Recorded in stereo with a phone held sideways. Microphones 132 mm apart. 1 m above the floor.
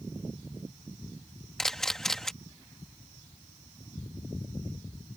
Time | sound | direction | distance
1.6 | a camera shutter | 5° left (ahead or behind) | ?